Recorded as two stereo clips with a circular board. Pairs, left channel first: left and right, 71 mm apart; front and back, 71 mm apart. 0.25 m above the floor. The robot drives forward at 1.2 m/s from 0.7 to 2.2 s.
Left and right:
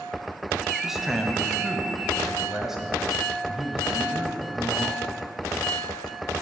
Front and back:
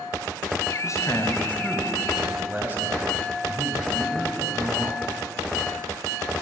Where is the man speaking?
5° right, 1.5 m; by 5.0 s 165° right, 1.0 m.